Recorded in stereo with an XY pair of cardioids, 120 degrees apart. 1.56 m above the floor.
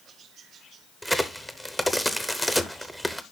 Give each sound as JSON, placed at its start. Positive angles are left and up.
{"t": 1.0, "sound": "a crack", "azimuth_deg": 0, "distance_m": 0.9}